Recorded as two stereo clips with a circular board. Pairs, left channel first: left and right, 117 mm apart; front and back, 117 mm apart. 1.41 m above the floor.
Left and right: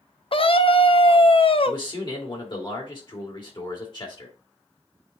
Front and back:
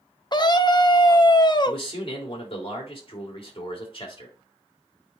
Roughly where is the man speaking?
Ahead left.